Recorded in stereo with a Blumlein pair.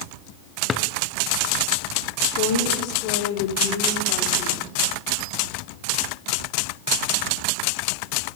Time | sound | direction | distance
0.7 | a drawer | 20° left | 0.7 m
2.4 | a woman speaking | 40° left | 3 m